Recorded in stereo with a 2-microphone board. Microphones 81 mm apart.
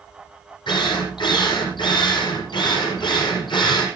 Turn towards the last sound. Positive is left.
turn(degrees=70)  # may be behind; listen again after turning